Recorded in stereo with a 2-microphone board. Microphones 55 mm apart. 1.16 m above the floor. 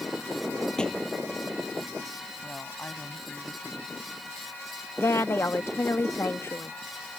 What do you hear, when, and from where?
0.8 s a thud: 15° left (ahead or behind)
2.4 s a woman speaking: 25° left (ahead or behind)
5.0 s a woman speaking: 55° left (ahead or behind)